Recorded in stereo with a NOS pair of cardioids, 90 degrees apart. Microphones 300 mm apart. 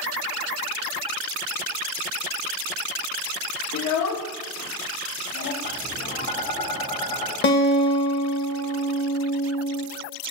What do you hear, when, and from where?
3.7 s a child speaking: 60° left, 1.2 m; by 5.5 s 70° left, 2 m
5.6 s tapping: 65° left, 2.5 m
7.4 s a guitar: 40° left, 1.6 m